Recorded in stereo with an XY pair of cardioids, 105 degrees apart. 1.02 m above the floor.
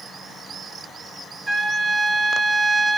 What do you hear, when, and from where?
1.5 s a trumpet: 15° right, 1.0 m